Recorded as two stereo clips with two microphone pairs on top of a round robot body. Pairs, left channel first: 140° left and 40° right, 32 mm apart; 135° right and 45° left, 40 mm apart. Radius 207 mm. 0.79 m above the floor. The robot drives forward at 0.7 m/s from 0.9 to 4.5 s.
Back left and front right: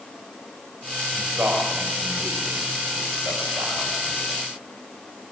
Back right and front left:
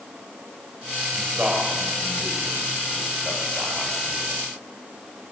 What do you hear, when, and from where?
1.1 s a man speaking: 25° right, 6 m; by 4.3 s 40° right, 4 m